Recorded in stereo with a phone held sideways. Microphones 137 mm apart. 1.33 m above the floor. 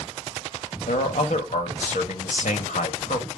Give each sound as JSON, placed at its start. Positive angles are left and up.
{"t": 0.9, "sound": "a man speaking", "side_deg": 75, "distance_m": 1.7}